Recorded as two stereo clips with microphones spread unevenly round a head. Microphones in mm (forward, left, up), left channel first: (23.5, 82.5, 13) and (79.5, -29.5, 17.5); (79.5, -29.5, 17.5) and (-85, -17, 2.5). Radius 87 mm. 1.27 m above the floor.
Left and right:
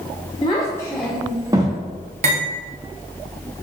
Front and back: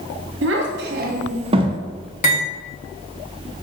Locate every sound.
0.4 s a child speaking: straight behind, 1.0 m; by 1.8 s 115° right, 0.8 m
2.2 s cutlery clinking: 45° right, 1.3 m